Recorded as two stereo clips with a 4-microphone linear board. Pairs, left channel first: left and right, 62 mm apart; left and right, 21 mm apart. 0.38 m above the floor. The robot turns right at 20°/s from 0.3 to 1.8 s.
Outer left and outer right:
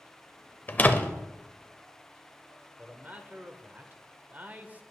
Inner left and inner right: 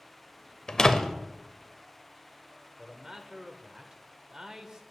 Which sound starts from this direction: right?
A man speaking, at 2.8 s.